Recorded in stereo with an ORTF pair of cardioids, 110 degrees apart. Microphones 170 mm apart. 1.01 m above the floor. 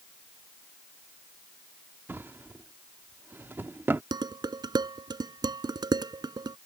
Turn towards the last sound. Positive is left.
turn(degrees=-25)